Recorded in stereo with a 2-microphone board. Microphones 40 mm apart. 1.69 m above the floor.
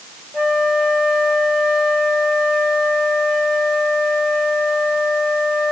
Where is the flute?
30° right (ahead or behind), 1.5 m.